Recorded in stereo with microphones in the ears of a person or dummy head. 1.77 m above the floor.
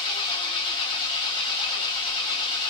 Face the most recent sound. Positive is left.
turn(degrees=30)  # may be behind; listen again after turning